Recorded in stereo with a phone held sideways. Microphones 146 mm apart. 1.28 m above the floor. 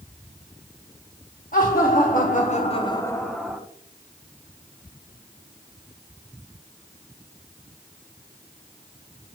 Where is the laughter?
75° left (ahead or behind), 1.6 m; by 3.6 s 5° right (ahead or behind), 1.2 m.